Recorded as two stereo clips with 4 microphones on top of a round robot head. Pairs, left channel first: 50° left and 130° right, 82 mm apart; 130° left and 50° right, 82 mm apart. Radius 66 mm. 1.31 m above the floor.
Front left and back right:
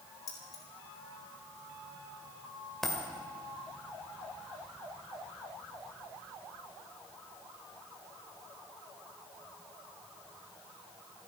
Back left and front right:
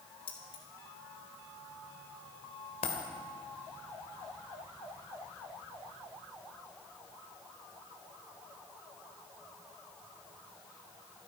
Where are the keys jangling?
100° left, 3.5 m.